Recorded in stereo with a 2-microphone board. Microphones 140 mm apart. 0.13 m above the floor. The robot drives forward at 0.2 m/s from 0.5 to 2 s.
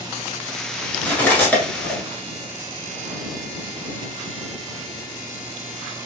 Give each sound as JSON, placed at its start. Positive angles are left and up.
{"t": 1.0, "sound": "cutlery clinking", "side_deg": 10, "distance_m": 0.9}